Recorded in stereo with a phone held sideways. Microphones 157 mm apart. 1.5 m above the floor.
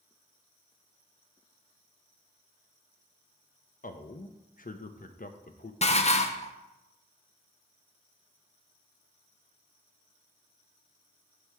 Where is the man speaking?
55° left (ahead or behind), 0.6 m.